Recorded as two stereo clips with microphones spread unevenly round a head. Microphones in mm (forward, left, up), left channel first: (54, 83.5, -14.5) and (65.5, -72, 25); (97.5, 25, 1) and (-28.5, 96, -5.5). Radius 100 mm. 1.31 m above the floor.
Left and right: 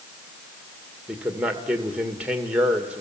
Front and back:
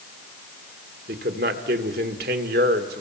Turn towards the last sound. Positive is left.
turn(degrees=-175)